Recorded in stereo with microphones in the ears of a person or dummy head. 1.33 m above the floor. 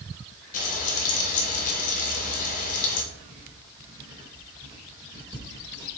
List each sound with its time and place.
0.5 s frying: 45° left (ahead or behind), 2 m
3.1 s writing: 25° right (ahead or behind), 2.0 m